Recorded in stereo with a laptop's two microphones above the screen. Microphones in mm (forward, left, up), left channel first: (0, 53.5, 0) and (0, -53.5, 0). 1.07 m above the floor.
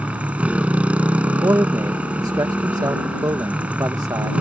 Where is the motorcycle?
15° right (ahead or behind).